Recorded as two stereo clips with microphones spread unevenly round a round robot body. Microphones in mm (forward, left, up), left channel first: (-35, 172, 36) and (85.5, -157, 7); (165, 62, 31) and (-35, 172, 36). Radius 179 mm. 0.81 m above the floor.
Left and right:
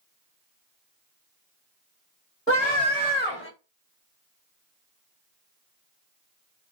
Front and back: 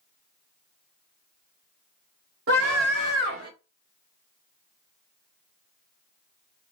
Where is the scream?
170° right, 2.0 m; by 3.5 s 170° left, 1.8 m.